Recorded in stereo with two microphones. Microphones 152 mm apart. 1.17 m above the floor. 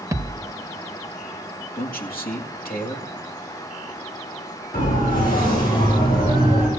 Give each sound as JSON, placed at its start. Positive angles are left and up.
{"t": 0.1, "sound": "a thud", "side_deg": -20, "distance_m": 1.1}
{"t": 1.8, "sound": "a man speaking", "side_deg": 75, "distance_m": 2.0}
{"t": 4.7, "sound": "a siren", "side_deg": 75, "distance_m": 5.5}